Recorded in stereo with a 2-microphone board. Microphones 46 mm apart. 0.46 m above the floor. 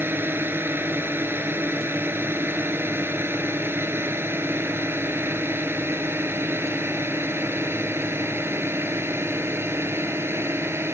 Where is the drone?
55° right (ahead or behind); by 10.9 s 65° right (ahead or behind).